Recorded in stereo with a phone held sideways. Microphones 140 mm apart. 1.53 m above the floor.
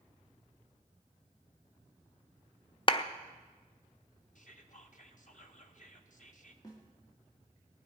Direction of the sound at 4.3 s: 65° left (ahead or behind).